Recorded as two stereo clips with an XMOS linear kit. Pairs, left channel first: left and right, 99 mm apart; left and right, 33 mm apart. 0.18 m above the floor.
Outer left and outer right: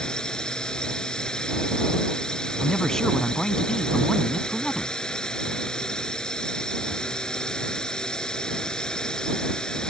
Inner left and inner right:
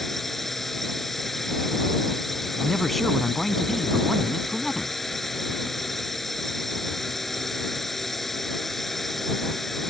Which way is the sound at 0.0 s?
10° left (ahead or behind).